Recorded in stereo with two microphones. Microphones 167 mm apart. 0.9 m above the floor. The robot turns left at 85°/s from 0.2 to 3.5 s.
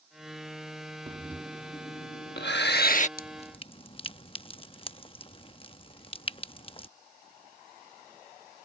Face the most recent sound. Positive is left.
turn(degrees=30)  # may be behind; listen again after turning